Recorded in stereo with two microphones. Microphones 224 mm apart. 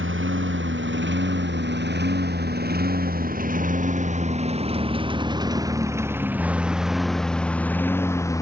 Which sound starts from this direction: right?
A lawn mower, at 0.0 s.